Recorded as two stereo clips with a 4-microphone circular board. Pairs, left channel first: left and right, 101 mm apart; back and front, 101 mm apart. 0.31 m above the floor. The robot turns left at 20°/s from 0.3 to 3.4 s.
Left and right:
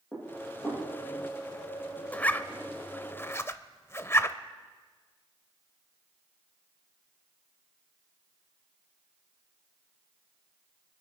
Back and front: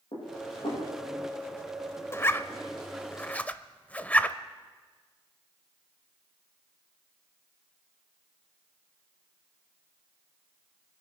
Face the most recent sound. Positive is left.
turn(degrees=120)